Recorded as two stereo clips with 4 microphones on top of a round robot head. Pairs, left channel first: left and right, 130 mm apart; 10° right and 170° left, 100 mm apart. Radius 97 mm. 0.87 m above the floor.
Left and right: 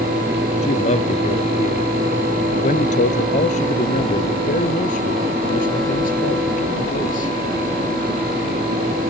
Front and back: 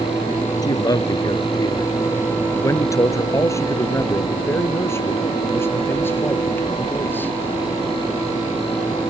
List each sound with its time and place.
0.6 s a man speaking: 40° left; by 7.3 s 60° left